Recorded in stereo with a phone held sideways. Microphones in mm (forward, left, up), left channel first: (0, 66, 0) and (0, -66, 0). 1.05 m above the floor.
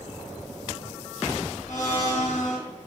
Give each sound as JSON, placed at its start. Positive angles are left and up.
{"t": 1.7, "sound": "a blender", "side_deg": 70, "distance_m": 3.5}